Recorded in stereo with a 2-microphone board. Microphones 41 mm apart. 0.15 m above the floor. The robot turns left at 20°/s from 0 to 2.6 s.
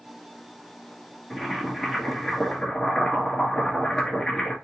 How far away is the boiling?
About 2 m.